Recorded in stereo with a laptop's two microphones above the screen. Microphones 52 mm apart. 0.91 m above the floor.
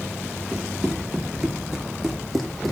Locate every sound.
0.5 s running footsteps: 15° right (ahead or behind), 6 m; by 2.7 s 5° left (ahead or behind), 3 m